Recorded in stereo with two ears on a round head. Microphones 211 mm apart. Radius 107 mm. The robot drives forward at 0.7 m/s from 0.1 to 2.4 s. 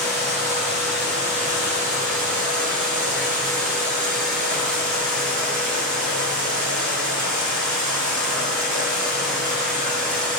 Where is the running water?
30° right (ahead or behind), 9.5 m; by 10.4 s 35° right (ahead or behind), 8.5 m.